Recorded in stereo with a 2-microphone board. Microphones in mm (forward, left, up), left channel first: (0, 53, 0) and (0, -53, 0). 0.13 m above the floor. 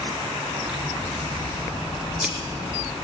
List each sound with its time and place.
0.7 s scissors: 10° right (ahead or behind), 1.8 m